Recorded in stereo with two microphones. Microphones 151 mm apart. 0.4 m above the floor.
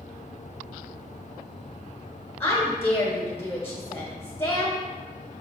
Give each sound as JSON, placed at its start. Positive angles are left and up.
{"t": 2.4, "sound": "a woman speaking", "side_deg": 15, "distance_m": 1.6}